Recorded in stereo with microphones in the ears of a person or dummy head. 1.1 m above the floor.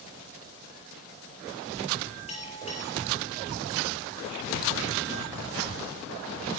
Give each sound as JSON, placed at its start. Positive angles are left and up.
{"t": 2.3, "sound": "a bell", "side_deg": 35, "distance_m": 5.0}